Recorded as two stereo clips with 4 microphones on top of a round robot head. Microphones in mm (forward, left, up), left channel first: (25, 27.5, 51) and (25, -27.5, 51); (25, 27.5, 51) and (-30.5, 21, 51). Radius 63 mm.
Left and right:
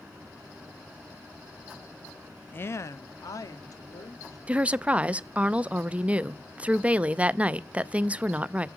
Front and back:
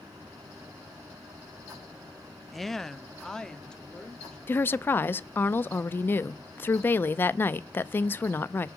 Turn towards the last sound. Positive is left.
turn(degrees=-30)